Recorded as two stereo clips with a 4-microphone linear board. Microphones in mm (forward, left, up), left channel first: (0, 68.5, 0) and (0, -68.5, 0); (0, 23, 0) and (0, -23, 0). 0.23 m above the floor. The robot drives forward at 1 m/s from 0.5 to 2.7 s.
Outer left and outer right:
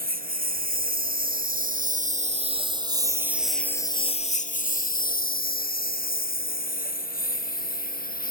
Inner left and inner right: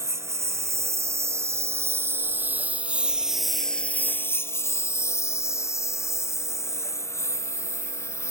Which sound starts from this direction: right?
A lawn mower, at 0.0 s.